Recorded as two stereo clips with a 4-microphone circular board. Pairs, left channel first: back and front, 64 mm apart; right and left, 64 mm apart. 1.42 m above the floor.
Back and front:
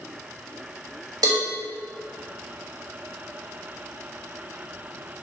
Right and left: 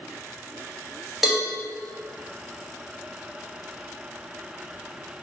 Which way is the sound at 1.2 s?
5° left.